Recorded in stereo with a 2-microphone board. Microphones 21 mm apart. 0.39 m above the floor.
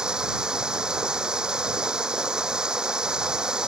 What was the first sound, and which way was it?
Running water, 30° right (ahead or behind).